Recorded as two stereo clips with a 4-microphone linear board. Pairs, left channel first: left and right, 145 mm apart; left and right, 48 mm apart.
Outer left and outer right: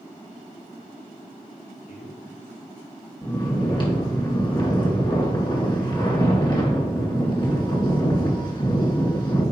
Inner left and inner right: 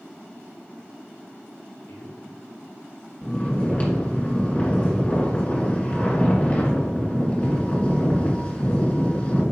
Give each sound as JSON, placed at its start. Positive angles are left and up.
{"t": 1.9, "sound": "a man speaking", "side_deg": 65, "distance_m": 3.0}
{"t": 3.2, "sound": "snoring", "side_deg": 30, "distance_m": 2.0}